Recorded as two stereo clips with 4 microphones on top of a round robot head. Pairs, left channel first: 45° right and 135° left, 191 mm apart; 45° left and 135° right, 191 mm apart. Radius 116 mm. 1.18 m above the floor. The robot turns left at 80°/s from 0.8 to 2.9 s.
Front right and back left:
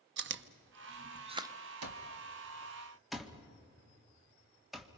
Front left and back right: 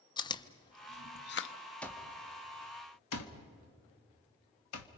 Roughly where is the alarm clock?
Behind left.